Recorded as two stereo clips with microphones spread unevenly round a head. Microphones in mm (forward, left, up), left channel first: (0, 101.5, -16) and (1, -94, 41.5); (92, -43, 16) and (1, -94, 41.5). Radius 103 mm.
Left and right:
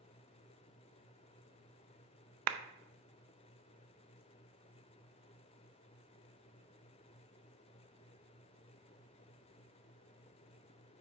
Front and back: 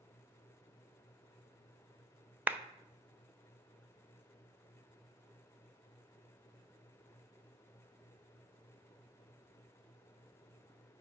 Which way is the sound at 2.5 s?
75° right.